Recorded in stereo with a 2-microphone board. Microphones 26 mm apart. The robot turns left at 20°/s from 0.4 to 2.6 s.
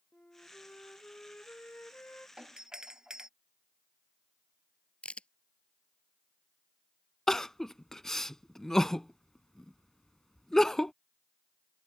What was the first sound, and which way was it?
A flute, 125° left.